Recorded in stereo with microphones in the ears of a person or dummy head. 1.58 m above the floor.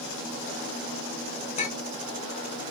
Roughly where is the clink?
Left.